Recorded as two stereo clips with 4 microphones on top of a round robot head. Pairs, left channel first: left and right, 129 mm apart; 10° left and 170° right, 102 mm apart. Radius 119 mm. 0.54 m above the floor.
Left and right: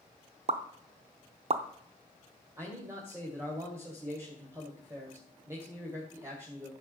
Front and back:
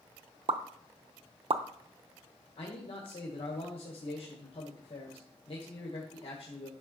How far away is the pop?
About 0.7 m.